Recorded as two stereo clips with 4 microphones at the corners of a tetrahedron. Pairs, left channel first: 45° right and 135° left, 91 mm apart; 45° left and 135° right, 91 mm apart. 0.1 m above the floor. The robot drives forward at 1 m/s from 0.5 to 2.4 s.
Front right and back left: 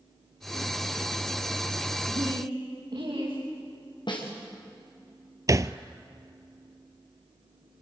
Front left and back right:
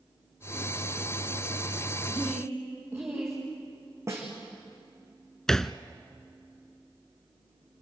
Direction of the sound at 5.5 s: 125° left.